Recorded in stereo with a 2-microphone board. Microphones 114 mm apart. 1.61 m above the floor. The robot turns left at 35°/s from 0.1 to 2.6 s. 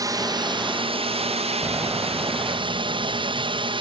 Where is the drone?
35° right; by 3.8 s 125° right.